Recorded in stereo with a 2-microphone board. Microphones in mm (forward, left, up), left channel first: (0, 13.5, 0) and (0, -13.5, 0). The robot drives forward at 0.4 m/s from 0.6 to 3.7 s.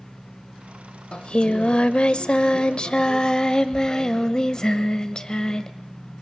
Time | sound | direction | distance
1.1 | singing | 40° left (ahead or behind) | 0.9 m